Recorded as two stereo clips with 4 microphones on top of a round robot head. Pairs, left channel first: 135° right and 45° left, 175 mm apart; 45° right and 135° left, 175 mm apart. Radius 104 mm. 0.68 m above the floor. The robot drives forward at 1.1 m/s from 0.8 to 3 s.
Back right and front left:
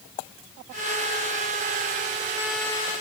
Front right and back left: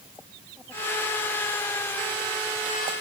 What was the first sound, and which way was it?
Only background noise.